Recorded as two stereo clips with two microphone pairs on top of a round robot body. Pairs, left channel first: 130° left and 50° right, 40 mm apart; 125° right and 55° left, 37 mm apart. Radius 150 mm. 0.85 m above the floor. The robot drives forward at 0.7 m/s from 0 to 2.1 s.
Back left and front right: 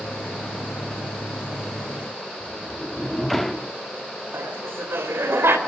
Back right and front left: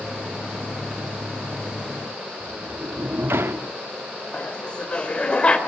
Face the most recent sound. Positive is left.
turn(degrees=-60)